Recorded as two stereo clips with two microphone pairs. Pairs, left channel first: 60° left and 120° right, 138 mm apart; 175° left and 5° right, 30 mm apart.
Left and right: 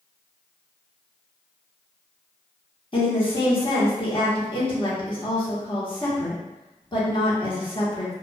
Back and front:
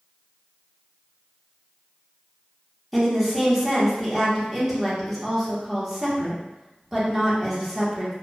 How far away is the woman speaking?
About 1.2 m.